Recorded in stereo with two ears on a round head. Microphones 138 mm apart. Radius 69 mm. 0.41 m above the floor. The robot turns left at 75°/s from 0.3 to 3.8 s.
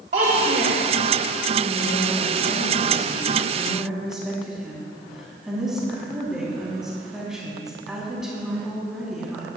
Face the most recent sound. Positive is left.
turn(degrees=-5)